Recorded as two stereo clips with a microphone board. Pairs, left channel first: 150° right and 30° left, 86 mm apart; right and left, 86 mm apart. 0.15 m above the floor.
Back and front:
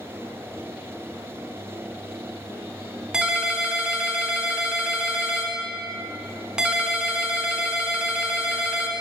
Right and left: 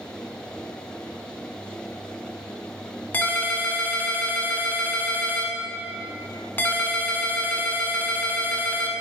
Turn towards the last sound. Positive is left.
turn(degrees=-45)